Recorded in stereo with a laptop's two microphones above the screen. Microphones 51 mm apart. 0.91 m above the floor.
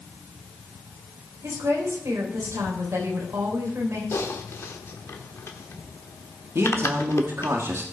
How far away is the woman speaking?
About 3.5 m.